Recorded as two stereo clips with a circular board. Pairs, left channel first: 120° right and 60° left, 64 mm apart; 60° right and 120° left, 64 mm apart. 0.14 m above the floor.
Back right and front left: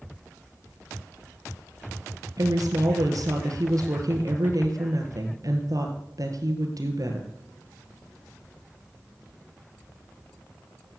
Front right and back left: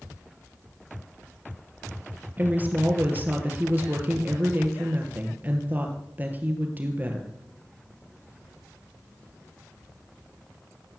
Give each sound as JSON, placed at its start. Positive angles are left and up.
{"t": 2.4, "sound": "a woman speaking", "azimuth_deg": 60, "distance_m": 3.0}